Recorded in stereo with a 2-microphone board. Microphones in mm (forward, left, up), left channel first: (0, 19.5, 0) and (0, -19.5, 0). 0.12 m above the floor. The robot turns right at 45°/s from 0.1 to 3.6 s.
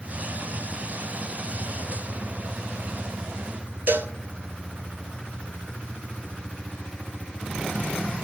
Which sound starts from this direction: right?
A cowbell, at 3.9 s.